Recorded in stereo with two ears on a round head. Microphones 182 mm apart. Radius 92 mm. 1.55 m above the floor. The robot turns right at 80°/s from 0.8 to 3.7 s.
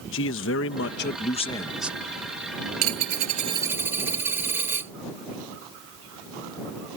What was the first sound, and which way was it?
A man speaking, 100° left.